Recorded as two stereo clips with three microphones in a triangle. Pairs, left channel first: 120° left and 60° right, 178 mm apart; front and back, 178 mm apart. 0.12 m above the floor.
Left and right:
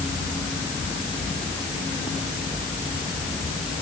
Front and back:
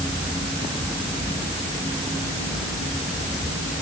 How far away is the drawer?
No drawer in this recording.